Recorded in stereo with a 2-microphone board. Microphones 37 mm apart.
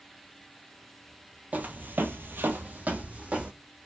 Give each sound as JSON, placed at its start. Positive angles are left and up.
{"t": 1.5, "sound": "footsteps", "side_deg": -40, "distance_m": 0.6}